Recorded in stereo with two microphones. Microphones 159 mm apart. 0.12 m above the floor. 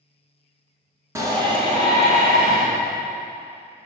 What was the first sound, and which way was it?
A shout, 20° right (ahead or behind).